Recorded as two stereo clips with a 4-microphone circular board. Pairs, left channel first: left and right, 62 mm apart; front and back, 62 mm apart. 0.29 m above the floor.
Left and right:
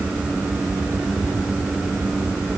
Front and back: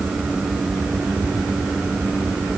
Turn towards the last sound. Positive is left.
No sound to turn to.